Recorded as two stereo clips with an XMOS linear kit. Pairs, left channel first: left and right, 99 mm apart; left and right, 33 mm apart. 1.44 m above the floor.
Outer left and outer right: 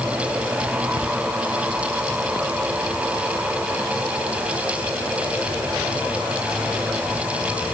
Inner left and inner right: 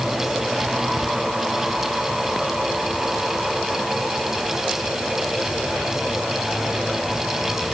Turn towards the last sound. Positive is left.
No sound to turn to.